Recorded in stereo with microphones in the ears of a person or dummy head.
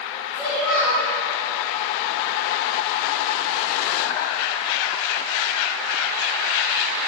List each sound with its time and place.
0.3 s a child speaking: 5° left (ahead or behind), 3 m